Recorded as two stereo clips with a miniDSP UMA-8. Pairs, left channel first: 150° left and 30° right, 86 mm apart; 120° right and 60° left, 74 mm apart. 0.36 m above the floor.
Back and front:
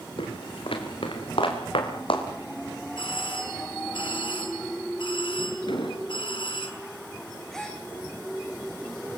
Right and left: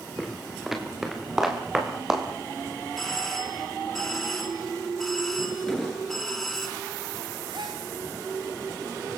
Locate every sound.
0.2 s footsteps: 150° left, 5 m; by 2.2 s 145° left, 6.5 m
3.0 s a doorbell: 155° left, 5.5 m
5.7 s an explosion: 155° left, 4.5 m
7.5 s a gasp: 65° left, 5.5 m